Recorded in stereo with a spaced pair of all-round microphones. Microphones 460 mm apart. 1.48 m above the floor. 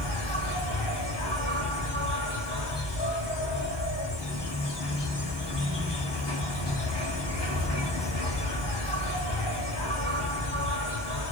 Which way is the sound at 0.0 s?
60° left (ahead or behind).